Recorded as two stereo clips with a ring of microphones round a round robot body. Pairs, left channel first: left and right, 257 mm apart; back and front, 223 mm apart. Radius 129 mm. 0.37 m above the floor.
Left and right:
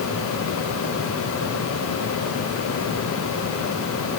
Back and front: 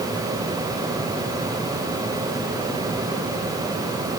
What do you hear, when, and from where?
Only background noise.